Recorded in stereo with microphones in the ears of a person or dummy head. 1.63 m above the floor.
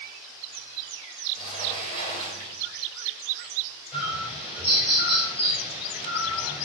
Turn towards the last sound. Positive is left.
turn(degrees=-10)  # may be behind; listen again after turning